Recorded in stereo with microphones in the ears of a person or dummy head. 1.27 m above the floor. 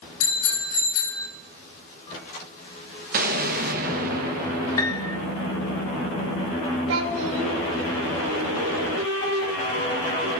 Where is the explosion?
45° right (ahead or behind), 1.1 m.